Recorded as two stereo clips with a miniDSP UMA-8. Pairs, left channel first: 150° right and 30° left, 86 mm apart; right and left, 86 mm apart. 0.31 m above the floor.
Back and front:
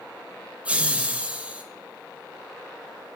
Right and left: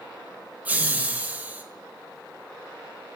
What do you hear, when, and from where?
0.7 s laughter: 70° left, 0.9 m